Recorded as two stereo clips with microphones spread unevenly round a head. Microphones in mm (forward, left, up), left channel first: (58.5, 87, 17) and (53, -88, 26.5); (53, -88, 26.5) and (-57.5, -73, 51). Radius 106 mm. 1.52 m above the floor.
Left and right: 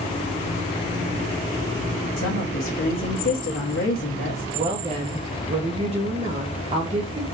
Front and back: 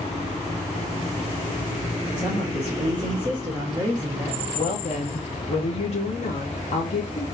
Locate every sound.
2.2 s a woman speaking: 90° left, 1.5 m
4.5 s a woman speaking: 35° right, 1.0 m